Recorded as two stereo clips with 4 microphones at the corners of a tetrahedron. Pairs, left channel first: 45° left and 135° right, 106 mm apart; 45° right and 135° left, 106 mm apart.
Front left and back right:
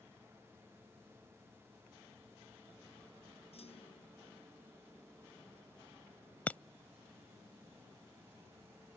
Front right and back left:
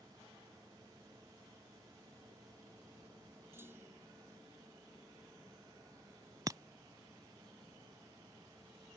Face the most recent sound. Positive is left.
turn(degrees=110)